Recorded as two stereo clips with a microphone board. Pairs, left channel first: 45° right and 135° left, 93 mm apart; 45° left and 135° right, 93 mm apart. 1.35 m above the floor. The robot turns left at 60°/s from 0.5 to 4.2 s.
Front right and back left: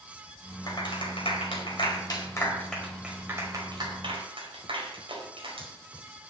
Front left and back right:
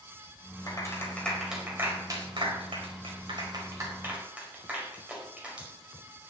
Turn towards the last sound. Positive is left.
turn(degrees=150)